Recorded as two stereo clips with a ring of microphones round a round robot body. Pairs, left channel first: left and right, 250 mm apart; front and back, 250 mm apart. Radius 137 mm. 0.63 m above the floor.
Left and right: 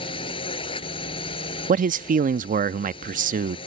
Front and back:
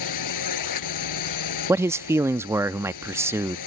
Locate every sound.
0.0 s a drone: 15° left
1.7 s a man speaking: 110° right